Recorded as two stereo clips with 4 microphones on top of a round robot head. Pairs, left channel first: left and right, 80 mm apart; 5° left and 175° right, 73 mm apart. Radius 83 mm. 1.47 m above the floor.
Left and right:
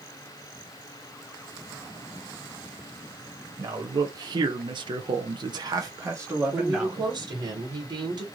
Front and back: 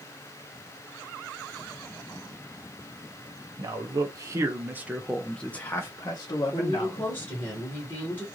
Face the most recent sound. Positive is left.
turn(degrees=-60)